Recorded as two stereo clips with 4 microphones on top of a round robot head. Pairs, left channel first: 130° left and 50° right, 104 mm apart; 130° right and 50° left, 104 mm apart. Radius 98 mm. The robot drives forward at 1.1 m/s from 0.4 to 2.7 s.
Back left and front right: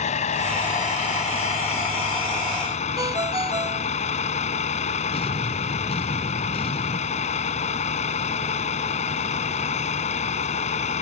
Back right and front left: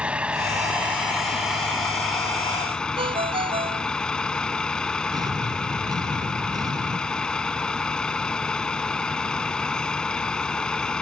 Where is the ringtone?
10° left.